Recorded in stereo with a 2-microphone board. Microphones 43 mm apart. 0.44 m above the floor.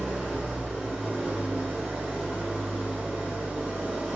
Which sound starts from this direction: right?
An engine running, at 0.0 s.